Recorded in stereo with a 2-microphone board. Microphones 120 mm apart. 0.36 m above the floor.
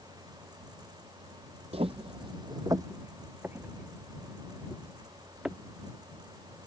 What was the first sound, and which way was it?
Footsteps, 60° right (ahead or behind).